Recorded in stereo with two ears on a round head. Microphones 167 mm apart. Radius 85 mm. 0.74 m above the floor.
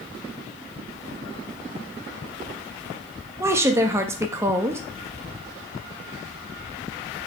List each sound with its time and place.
3.4 s a woman speaking: 15° right (ahead or behind), 0.5 m